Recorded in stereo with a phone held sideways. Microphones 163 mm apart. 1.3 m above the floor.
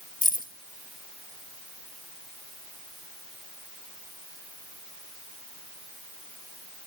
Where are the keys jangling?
55° left (ahead or behind), 1.5 m.